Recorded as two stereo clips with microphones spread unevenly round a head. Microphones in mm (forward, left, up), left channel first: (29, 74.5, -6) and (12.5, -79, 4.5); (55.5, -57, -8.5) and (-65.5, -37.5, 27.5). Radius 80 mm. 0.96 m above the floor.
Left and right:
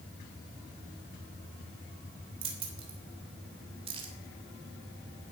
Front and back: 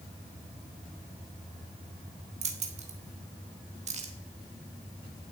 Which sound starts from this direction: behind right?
Keys jangling, at 2.4 s.